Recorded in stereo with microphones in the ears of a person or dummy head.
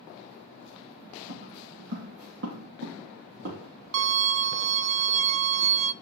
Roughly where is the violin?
Right.